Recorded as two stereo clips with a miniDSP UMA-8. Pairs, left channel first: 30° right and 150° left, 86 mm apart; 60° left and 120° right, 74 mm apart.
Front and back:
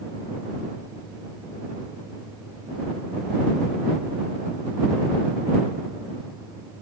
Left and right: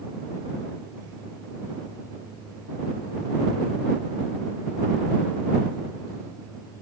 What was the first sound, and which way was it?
Only background noise.